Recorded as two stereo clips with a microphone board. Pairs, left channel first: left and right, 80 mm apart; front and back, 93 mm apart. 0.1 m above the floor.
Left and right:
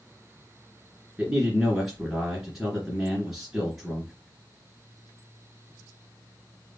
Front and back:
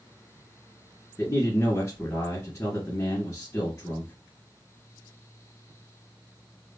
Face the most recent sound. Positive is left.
turn(degrees=-15)